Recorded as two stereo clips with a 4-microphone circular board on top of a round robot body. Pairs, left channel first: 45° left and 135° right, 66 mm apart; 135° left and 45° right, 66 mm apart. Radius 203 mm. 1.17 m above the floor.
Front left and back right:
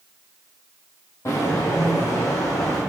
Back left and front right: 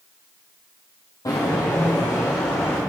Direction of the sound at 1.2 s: 95° left.